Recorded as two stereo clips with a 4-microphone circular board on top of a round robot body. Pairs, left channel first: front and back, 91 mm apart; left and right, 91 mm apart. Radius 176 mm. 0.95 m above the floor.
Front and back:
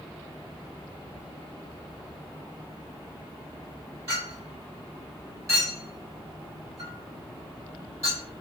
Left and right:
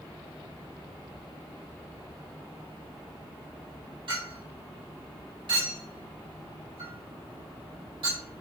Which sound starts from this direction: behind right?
A clink, at 4.1 s.